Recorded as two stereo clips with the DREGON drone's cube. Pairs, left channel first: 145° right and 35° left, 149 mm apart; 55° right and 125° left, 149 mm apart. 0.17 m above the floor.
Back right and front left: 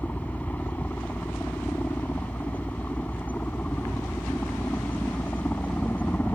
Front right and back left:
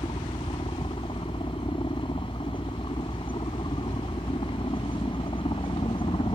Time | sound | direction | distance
0.0 | a helicopter | 75° right | ?